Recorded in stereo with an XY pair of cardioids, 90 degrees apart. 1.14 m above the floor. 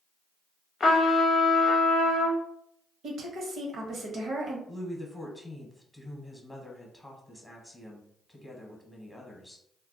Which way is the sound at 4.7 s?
5° left.